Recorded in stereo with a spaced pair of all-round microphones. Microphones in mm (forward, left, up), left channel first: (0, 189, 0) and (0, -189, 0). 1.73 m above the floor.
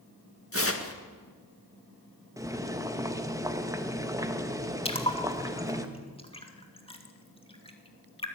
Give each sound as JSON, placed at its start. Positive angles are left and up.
{"t": 0.5, "sound": "tearing paper", "side_deg": 35, "distance_m": 1.9}
{"t": 2.4, "sound": "boiling", "side_deg": -10, "distance_m": 1.5}
{"t": 4.8, "sound": "a splash", "side_deg": 15, "distance_m": 2.5}